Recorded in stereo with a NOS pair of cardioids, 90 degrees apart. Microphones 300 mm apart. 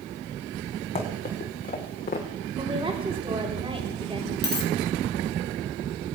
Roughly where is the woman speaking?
Ahead.